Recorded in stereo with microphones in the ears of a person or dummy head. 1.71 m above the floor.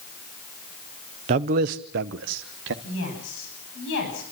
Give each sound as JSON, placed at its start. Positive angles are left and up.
{"t": 1.3, "sound": "a man speaking", "side_deg": -40, "distance_m": 0.7}
{"t": 2.8, "sound": "a woman speaking", "side_deg": 65, "distance_m": 10.0}